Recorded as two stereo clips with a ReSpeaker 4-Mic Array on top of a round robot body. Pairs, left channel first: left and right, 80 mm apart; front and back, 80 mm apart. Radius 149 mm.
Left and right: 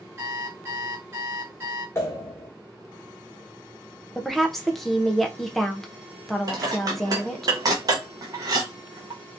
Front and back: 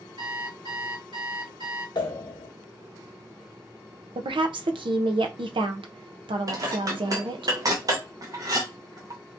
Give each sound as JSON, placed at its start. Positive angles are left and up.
{"t": 0.2, "sound": "an alarm clock", "azimuth_deg": -150, "distance_m": 1.6}
{"t": 1.9, "sound": "a pop", "azimuth_deg": 35, "distance_m": 0.9}
{"t": 4.2, "sound": "a woman speaking", "azimuth_deg": 180, "distance_m": 0.7}
{"t": 6.5, "sound": "dishes clattering", "azimuth_deg": -135, "distance_m": 0.6}